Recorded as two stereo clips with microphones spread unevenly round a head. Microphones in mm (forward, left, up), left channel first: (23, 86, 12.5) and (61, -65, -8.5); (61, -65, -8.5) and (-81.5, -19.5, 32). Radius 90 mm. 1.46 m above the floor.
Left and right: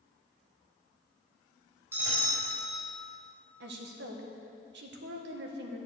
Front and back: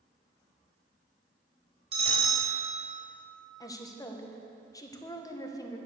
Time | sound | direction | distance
1.9 | a bell | 155° right | 4 m
3.6 | a woman speaking | 80° right | 1.6 m